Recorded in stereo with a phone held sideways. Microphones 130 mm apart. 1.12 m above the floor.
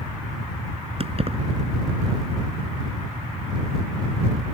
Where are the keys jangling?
45° right (ahead or behind).